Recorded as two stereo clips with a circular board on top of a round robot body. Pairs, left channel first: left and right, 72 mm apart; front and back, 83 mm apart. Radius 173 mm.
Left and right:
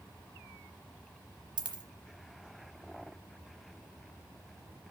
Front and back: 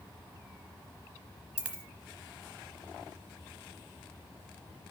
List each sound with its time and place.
1.6 s a dropped coin: 105° right, 0.9 m